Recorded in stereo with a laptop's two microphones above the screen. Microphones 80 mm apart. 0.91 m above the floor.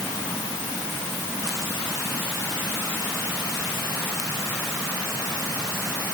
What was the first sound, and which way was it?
Only background noise.